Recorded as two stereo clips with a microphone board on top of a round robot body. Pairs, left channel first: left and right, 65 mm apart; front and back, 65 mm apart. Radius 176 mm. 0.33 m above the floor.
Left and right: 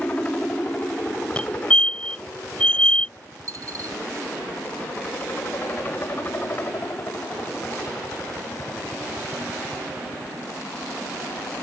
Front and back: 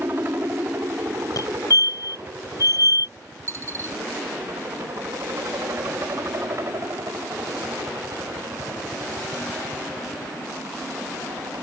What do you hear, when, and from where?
0.0 s a helicopter: 150° left; by 11.6 s 140° left
1.4 s a fire alarm: 15° left
3.5 s a dropped coin: 130° right